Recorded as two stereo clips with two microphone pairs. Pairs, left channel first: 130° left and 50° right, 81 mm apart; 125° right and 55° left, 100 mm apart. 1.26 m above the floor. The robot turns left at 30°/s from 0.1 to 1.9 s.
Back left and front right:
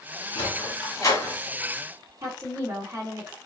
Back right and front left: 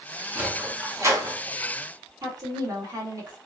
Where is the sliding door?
120° left, 1.6 m; by 1.4 s 90° left, 1.6 m.